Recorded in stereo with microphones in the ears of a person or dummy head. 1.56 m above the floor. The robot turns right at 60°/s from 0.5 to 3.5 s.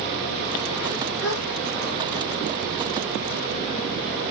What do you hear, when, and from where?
1.2 s a gasp: 75° left (ahead or behind), 1.7 m